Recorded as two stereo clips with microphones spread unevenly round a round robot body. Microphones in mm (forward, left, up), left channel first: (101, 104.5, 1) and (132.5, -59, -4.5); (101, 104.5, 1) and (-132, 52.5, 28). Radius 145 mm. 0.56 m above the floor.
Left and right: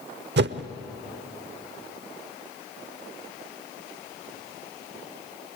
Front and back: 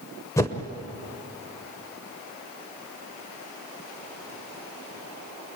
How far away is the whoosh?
About 0.8 m.